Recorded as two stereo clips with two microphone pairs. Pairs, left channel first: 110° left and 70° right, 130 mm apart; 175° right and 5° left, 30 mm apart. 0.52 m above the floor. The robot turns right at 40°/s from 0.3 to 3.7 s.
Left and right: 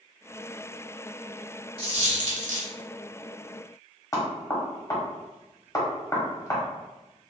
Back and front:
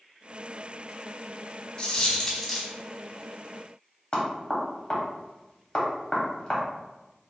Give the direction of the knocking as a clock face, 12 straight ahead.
7 o'clock.